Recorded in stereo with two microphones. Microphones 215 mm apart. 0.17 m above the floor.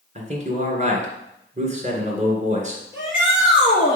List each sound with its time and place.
0.1 s a man speaking: 35° right (ahead or behind), 1.9 m
2.9 s a shout: 60° right (ahead or behind), 3 m